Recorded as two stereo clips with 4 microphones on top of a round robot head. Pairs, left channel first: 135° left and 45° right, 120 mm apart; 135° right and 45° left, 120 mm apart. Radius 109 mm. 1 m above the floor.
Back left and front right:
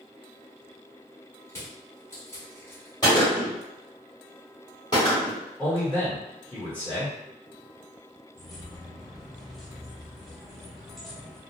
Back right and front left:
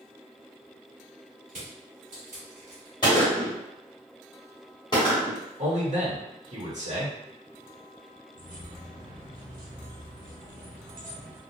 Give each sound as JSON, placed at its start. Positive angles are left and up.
{"t": 1.5, "sound": "crushing", "azimuth_deg": 65, "distance_m": 1.2}
{"t": 3.0, "sound": "a gunshot", "azimuth_deg": 180, "distance_m": 0.8}
{"t": 5.6, "sound": "a man speaking", "azimuth_deg": 50, "distance_m": 1.3}
{"t": 8.3, "sound": "keys jangling", "azimuth_deg": 45, "distance_m": 0.7}